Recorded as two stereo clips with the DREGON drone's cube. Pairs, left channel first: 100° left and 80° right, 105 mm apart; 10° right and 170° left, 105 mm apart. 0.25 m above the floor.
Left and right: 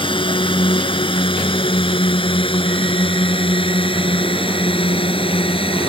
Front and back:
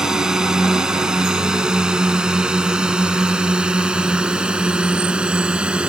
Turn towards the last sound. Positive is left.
turn(degrees=90)